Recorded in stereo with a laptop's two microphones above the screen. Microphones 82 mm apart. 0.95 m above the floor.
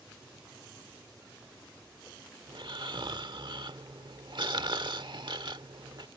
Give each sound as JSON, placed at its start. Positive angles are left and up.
{"t": 0.0, "sound": "an aircraft", "side_deg": -40}
{"t": 2.5, "sound": "snoring", "side_deg": -65}